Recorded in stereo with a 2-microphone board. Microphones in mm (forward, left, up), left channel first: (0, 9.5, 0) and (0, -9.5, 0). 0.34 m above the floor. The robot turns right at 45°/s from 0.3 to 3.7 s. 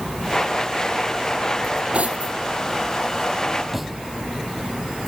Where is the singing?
I don't hear singing.